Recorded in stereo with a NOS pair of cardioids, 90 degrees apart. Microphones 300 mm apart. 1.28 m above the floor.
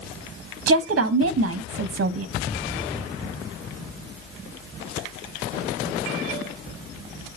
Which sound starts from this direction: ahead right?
A woman speaking, at 0.7 s.